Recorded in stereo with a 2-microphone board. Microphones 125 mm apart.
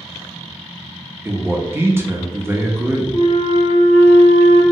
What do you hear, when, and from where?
1.2 s a man speaking: 20° right (ahead or behind), 0.5 m
3.1 s a flute: 65° left (ahead or behind), 1.1 m